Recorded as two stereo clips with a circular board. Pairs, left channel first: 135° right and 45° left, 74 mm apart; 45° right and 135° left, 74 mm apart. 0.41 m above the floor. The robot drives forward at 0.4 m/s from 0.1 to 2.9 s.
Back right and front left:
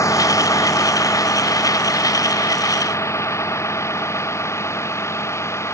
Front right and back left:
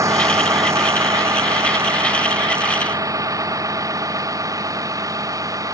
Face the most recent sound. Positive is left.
turn(degrees=175)